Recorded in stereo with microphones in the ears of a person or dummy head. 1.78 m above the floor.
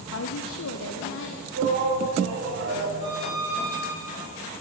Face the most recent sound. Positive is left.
turn(degrees=-30)  # may be behind; listen again after turning